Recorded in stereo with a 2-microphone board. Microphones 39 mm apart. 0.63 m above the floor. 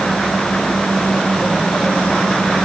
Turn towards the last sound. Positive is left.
No sound to turn to.